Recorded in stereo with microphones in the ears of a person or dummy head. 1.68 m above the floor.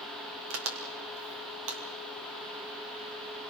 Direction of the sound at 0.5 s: 80° right.